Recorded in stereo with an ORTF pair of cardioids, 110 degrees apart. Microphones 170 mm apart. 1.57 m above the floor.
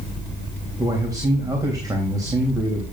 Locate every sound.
0.8 s a man speaking: 20° right, 3 m